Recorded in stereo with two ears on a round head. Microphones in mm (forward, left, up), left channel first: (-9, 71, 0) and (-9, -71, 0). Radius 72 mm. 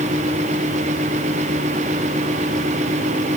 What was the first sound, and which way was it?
Only background noise.